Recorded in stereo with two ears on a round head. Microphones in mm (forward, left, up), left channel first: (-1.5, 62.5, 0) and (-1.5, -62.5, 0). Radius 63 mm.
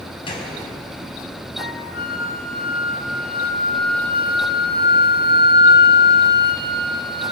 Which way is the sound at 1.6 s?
70° left (ahead or behind).